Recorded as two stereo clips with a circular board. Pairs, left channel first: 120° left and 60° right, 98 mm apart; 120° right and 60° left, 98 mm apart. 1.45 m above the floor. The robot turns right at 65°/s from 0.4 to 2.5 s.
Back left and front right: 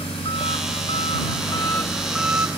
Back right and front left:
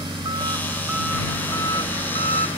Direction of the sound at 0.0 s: 100° left.